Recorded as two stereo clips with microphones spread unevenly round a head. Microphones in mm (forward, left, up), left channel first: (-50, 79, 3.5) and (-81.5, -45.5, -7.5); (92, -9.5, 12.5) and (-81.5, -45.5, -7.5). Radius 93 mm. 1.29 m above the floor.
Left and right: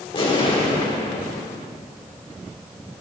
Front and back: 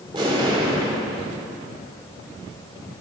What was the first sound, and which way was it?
An explosion, 120° left.